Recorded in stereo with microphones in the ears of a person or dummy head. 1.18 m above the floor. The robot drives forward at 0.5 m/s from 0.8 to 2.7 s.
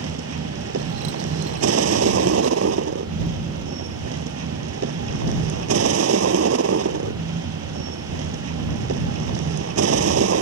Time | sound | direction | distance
0.0 | a vehicle | 90° right | ?